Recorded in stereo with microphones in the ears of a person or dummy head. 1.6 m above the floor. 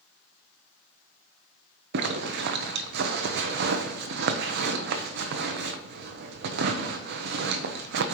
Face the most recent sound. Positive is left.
turn(degrees=-65)  # may be behind; listen again after turning